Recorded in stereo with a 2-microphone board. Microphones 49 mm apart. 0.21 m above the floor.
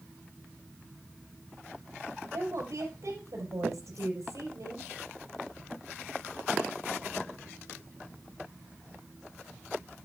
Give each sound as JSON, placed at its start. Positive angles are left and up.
{"t": 2.3, "sound": "a woman speaking", "side_deg": -70, "distance_m": 5.0}